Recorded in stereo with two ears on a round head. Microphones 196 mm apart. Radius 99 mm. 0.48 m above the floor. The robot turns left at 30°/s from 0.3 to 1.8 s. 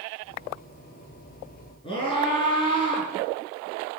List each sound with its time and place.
1.8 s a scream: 25° left (ahead or behind), 6.5 m